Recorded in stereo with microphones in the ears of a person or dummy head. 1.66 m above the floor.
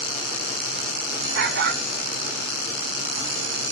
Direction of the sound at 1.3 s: 65° right (ahead or behind).